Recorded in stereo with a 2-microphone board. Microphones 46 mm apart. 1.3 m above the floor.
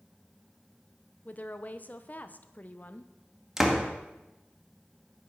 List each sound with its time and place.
1.2 s a woman speaking: 40° left (ahead or behind), 0.9 m
3.6 s a door slam: 10° right (ahead or behind), 1.8 m